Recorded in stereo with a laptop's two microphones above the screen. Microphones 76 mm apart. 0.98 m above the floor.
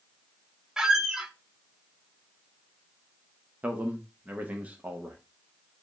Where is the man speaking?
20° right (ahead or behind), 1.0 m.